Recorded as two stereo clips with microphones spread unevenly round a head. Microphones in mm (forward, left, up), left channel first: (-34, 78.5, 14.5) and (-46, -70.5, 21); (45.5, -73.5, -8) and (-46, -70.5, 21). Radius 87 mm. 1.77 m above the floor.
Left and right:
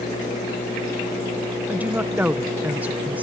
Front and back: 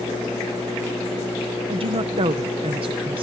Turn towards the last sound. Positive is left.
turn(degrees=-175)